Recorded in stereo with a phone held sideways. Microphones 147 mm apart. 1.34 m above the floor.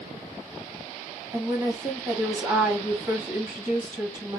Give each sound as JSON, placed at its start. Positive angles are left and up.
{"t": 1.3, "sound": "a woman speaking", "side_deg": -25, "distance_m": 1.6}